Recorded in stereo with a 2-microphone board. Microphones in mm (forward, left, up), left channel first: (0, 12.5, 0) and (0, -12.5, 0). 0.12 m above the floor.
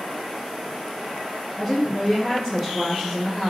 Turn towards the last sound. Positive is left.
turn(degrees=15)  # may be behind; listen again after turning